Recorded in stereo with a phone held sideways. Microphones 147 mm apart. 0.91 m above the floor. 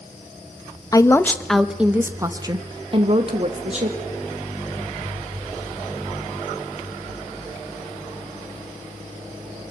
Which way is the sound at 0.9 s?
25° left (ahead or behind).